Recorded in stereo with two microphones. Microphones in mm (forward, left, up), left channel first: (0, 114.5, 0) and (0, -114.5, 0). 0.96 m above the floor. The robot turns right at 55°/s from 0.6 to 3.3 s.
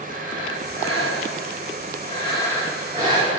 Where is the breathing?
65° left, 5.5 m; by 3.4 s 145° right, 5.5 m.